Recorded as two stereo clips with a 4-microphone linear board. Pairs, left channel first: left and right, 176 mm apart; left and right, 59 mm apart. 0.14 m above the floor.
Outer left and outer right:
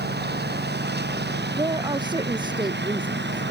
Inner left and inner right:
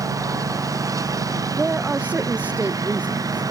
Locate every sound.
0.0 s a lawn mower: 70° right (ahead or behind); by 3.5 s 80° right
1.5 s a woman speaking: 25° right (ahead or behind)